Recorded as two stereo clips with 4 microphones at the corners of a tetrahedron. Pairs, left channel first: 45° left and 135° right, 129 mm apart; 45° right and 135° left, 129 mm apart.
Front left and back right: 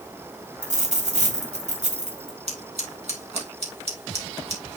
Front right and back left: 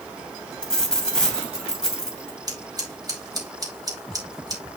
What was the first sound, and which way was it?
A dropped coin, 130° right.